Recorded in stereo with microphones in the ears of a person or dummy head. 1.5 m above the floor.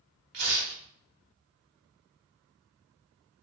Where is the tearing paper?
65° right (ahead or behind), 0.8 m.